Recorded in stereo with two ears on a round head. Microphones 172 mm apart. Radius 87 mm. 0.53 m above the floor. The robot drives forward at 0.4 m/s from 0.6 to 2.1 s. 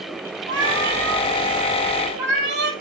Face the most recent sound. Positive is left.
turn(degrees=-60)  # may be behind; listen again after turning